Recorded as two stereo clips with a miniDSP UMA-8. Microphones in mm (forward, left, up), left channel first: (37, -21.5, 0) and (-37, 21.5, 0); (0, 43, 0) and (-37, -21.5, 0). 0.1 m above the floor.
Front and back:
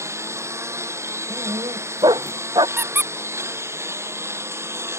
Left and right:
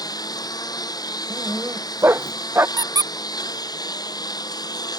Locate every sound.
0.0 s a lawn mower: 90° left
1.3 s a dog barking: 175° right
2.8 s a squeak: 145° right